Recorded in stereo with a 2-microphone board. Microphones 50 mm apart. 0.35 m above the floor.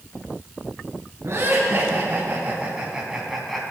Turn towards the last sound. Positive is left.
turn(degrees=5)  # may be behind; listen again after turning